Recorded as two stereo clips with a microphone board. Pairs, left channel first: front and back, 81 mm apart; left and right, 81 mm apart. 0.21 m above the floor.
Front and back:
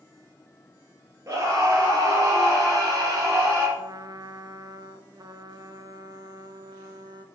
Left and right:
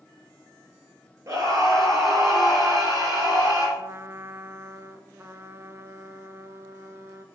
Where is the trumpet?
145° right, 0.6 m.